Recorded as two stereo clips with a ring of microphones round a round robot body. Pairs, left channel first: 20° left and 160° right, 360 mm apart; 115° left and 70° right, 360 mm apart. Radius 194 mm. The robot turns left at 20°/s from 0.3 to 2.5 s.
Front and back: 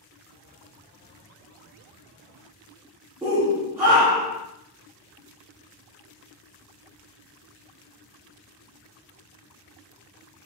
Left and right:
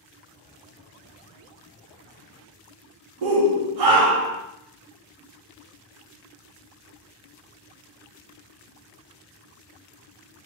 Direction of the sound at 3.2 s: 75° right.